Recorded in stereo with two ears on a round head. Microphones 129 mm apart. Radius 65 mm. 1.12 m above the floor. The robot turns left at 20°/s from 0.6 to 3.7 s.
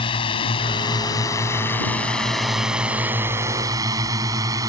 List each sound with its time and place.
0.0 s a drone: 35° left (ahead or behind); by 4.7 s 25° right (ahead or behind)